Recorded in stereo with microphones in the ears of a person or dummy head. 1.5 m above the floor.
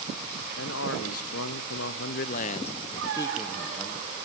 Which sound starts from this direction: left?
A man speaking, at 0.6 s.